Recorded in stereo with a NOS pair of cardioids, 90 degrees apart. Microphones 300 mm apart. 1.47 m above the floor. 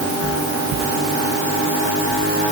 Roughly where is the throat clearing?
No throat clearing in this recording.